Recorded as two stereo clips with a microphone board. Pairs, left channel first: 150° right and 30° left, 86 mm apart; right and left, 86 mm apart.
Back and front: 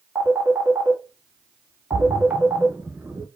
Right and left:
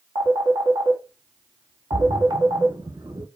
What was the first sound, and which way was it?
A phone ringing, 95° left.